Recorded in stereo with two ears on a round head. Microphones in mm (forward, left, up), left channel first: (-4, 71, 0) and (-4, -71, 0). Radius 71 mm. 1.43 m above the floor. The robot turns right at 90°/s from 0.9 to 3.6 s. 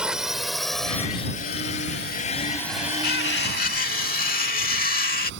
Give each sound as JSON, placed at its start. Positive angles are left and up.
{"t": 0.0, "sound": "a drone", "side_deg": -5}
{"t": 3.0, "sound": "cutlery clinking", "azimuth_deg": 65}